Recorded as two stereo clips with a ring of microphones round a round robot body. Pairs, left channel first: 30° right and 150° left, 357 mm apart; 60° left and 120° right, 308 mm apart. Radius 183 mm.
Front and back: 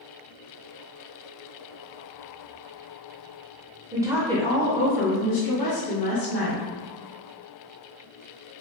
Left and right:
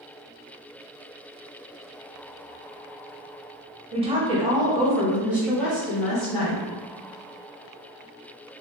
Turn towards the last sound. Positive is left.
turn(degrees=-25)